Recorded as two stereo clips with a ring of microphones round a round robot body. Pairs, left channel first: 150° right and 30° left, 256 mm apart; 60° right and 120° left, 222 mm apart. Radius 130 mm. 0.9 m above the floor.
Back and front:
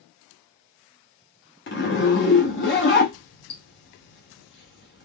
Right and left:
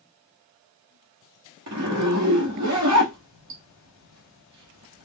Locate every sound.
1.7 s a zipper: 160° left, 0.9 m